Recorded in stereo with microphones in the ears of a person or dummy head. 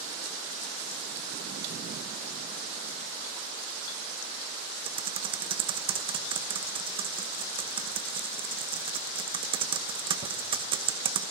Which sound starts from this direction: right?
Typing on a keyboard, at 4.8 s.